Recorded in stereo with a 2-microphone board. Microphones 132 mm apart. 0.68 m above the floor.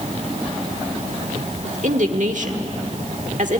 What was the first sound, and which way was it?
A woman speaking, 70° right (ahead or behind).